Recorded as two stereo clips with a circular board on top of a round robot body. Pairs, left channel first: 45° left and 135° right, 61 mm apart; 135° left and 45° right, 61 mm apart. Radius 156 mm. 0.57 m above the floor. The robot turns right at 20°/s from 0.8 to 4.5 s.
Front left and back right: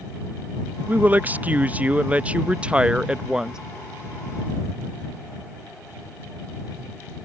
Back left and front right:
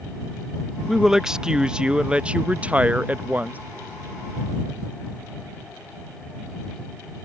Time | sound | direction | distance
0.9 | a woman speaking | 120° right | ?